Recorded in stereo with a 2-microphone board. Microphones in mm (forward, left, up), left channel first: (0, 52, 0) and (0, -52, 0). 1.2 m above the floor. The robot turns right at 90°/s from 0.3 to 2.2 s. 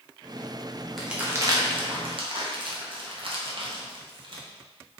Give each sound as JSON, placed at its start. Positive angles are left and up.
{"t": 1.0, "sound": "crumpling", "side_deg": 5, "distance_m": 0.7}